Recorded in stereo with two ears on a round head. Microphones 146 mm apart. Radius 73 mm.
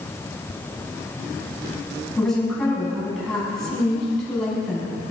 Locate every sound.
2.2 s a woman speaking: 5° left (ahead or behind), 5.5 m